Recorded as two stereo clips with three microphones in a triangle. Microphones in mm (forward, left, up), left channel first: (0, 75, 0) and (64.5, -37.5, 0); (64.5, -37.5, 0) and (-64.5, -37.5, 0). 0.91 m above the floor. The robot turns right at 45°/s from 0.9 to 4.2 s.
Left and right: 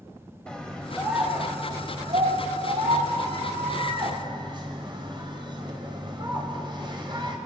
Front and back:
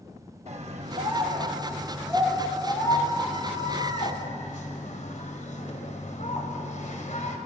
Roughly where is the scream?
Behind right.